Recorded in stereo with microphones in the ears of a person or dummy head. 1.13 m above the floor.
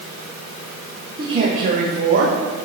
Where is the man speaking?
25° right (ahead or behind), 0.9 m; by 2.4 s 70° right (ahead or behind), 1.3 m.